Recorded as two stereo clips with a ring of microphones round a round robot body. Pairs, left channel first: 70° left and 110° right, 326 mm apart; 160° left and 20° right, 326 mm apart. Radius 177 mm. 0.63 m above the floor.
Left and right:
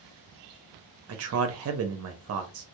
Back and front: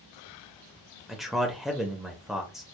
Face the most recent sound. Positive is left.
turn(degrees=-110)